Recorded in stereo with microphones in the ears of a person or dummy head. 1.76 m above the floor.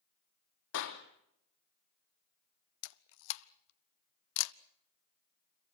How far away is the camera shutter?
About 0.8 m.